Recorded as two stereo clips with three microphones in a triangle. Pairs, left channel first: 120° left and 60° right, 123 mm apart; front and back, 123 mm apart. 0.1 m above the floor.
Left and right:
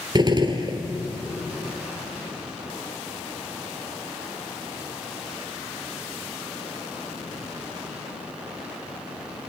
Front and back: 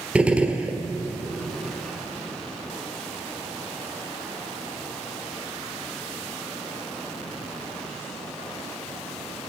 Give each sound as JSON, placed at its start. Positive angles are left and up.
{"t": 0.1, "sound": "a gunshot", "azimuth_deg": -100, "distance_m": 1.2}